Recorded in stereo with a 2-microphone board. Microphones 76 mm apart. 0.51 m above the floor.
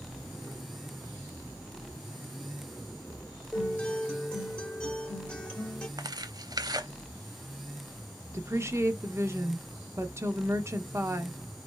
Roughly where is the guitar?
Centre.